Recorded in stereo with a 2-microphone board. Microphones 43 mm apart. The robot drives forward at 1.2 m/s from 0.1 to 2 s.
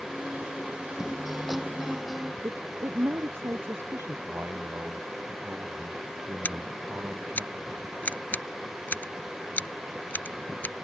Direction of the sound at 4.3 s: 50° right (ahead or behind).